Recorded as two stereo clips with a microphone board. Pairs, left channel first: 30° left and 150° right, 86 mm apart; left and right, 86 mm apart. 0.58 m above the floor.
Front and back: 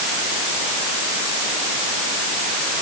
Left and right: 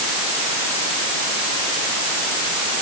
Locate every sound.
Only background noise.